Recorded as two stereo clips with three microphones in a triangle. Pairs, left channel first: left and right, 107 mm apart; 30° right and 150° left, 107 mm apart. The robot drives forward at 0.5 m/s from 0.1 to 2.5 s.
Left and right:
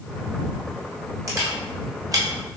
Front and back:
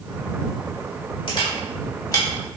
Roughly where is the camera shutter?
Ahead right.